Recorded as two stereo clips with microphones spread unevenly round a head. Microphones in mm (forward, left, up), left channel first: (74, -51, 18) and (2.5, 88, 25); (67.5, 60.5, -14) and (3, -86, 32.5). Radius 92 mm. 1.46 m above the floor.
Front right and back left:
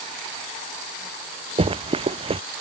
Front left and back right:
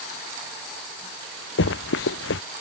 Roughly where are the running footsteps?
Ahead left.